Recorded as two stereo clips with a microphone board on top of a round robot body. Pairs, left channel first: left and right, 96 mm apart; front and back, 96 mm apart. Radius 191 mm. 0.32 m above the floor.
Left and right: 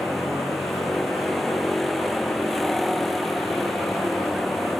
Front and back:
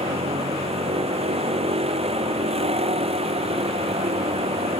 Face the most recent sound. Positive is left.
turn(degrees=175)